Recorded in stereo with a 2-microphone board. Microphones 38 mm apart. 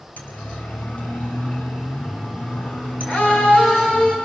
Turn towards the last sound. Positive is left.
turn(degrees=35)  # may be behind; listen again after turning